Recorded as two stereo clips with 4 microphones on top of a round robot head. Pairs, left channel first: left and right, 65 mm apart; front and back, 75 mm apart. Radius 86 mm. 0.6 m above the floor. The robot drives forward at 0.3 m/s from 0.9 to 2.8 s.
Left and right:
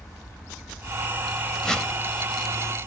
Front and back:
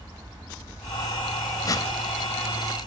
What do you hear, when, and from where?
1.6 s a whoosh: 10° left, 0.8 m